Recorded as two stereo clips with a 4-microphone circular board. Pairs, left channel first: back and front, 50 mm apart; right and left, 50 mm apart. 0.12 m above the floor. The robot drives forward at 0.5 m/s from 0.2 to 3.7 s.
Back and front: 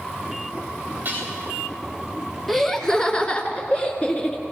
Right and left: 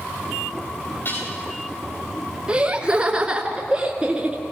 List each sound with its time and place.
1.1 s dishes clattering: 55° right, 9.5 m
2.5 s laughter: 100° left, 1.2 m; by 4.4 s 150° left, 1.3 m